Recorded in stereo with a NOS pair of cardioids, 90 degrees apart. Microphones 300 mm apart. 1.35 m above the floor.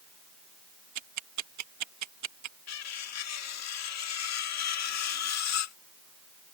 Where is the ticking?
70° right.